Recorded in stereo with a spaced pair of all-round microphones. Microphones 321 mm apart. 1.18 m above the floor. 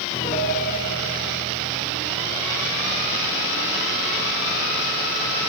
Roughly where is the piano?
Left.